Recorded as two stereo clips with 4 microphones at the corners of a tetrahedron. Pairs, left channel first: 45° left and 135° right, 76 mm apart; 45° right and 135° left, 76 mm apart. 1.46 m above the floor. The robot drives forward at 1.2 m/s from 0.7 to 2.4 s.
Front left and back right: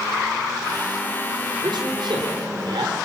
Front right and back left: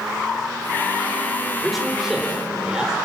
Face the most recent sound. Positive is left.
turn(degrees=-145)